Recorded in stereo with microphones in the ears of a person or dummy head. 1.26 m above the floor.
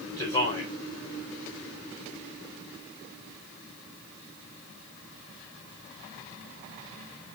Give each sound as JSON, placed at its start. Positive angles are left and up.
{"t": 0.2, "sound": "a man speaking", "side_deg": 35, "distance_m": 3.5}